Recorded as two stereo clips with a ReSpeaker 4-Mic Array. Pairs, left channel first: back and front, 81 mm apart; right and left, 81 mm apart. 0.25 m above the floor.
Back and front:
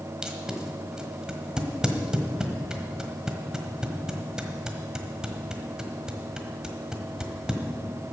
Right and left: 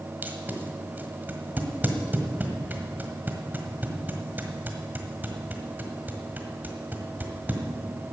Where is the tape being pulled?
70° left, 1.4 m.